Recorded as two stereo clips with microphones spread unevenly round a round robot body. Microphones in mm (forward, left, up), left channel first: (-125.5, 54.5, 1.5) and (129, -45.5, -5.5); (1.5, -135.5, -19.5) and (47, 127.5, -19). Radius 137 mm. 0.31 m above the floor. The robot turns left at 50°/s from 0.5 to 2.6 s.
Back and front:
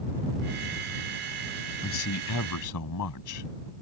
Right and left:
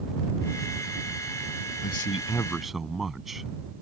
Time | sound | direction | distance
1.8 | a man speaking | 150° right | ?